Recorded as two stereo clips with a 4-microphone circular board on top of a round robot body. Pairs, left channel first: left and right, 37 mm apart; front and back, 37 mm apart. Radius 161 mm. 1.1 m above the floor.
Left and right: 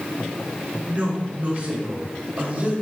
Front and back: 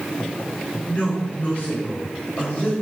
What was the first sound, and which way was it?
A woman speaking, 40° right.